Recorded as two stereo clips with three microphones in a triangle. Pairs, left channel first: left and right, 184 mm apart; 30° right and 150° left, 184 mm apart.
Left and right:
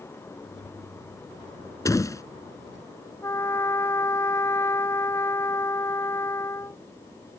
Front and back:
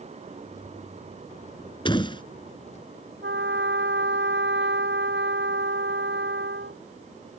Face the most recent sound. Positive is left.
turn(degrees=165)